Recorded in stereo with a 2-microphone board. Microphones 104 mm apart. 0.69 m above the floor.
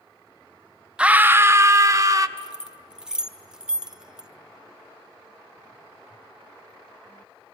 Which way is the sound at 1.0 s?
10° right (ahead or behind).